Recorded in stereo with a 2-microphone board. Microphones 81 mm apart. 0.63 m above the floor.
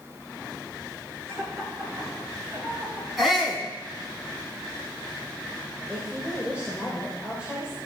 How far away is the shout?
About 6.5 m.